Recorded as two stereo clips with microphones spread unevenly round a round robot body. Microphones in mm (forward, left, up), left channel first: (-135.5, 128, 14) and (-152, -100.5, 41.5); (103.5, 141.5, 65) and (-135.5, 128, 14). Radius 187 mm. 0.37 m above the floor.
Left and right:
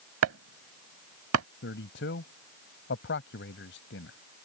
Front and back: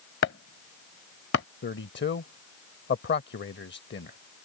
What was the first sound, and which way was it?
Chopping, 55° right.